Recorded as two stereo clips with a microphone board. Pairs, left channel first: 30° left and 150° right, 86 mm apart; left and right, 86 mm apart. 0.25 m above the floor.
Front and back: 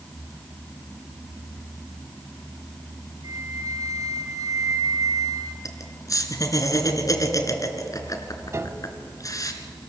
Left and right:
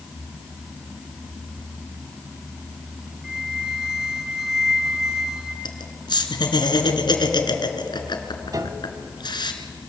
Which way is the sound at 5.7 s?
75° left.